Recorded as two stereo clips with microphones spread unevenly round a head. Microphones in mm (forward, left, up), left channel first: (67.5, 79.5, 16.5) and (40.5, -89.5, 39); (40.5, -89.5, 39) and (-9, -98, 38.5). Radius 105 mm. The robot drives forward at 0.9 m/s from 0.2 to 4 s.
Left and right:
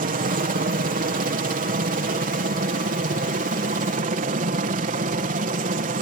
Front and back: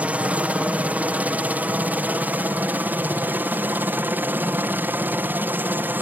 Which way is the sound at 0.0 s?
120° right.